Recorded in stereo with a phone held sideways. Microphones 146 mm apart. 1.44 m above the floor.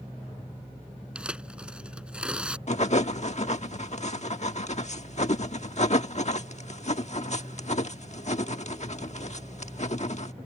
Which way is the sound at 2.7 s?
50° left (ahead or behind).